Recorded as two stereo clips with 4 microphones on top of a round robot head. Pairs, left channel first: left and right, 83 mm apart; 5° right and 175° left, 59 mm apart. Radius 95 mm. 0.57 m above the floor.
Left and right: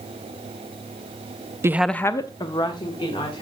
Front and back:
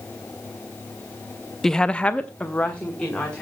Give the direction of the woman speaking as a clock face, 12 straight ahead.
3 o'clock.